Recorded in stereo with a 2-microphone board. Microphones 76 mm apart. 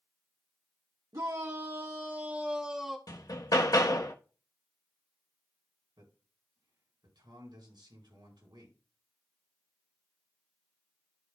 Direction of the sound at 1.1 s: 60° right (ahead or behind).